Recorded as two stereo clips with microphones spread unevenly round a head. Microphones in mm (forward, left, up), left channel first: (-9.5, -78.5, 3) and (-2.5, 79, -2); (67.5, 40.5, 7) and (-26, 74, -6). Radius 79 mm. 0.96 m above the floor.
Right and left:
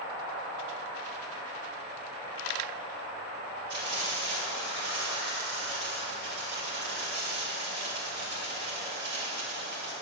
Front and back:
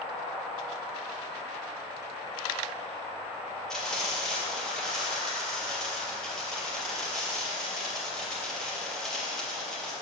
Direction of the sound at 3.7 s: 65° left.